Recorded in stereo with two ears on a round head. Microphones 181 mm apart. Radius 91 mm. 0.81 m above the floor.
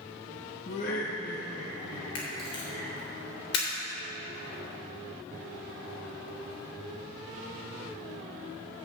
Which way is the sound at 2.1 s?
55° left (ahead or behind).